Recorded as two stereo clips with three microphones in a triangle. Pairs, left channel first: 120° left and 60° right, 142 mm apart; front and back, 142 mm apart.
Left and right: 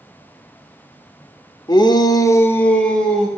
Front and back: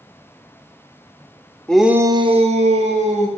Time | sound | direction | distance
1.7 | a shout | 80° left | 0.9 m